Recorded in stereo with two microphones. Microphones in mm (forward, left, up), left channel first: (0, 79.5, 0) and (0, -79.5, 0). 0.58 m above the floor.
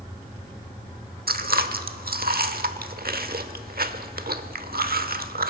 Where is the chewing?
70° right (ahead or behind), 1.0 m.